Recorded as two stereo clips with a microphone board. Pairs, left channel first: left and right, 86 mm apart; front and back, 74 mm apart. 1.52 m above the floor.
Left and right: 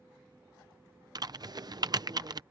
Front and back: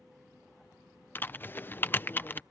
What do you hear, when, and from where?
1.1 s typing on a keyboard: 60° right